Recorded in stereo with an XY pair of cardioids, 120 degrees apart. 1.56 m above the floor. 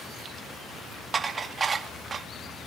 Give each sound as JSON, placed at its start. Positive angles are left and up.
{"t": 1.1, "sound": "dishes clattering", "azimuth_deg": -30, "distance_m": 1.9}